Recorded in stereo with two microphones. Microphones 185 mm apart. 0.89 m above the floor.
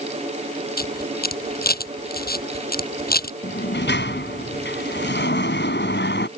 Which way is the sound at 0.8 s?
60° left (ahead or behind).